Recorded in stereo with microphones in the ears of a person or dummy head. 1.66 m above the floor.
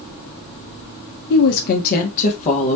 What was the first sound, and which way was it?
A woman speaking, 55° left (ahead or behind).